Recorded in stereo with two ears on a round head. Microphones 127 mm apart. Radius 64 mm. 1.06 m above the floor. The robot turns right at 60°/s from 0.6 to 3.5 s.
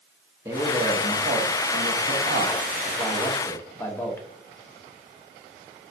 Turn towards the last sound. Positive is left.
turn(degrees=15)